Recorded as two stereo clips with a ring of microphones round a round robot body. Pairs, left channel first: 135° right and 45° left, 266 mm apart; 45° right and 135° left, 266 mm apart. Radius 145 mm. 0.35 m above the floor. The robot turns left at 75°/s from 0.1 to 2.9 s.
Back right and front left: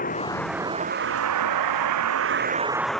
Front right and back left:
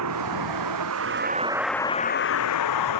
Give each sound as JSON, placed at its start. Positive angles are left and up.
{"t": 0.0, "sound": "a vehicle", "azimuth_deg": 165}